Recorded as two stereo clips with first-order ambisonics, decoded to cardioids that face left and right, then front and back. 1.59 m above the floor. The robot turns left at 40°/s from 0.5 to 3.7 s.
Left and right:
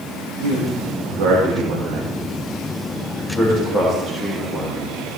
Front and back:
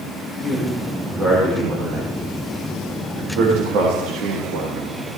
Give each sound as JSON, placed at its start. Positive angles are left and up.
{"t": 0.4, "sound": "a man speaking", "azimuth_deg": -75, "distance_m": 3.0}